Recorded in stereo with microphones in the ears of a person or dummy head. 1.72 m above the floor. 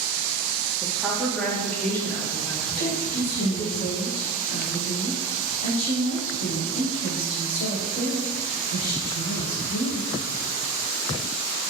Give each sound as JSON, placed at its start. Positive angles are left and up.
{"t": 0.8, "sound": "a woman speaking", "side_deg": -15, "distance_m": 0.8}
{"t": 2.8, "sound": "a woman speaking", "side_deg": 45, "distance_m": 1.5}